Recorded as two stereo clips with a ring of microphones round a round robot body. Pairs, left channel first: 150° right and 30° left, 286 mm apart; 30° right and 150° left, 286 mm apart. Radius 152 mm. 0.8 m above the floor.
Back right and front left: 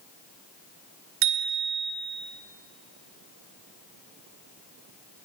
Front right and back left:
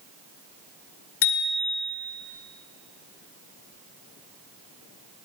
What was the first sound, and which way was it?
A bicycle bell, 5° right.